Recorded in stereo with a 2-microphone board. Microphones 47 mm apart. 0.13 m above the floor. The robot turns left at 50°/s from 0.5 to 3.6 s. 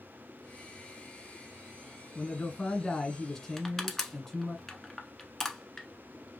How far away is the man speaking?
About 1.3 m.